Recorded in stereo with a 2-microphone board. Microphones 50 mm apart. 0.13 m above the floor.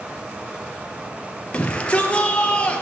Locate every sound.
1.5 s a shout: 25° left (ahead or behind), 2 m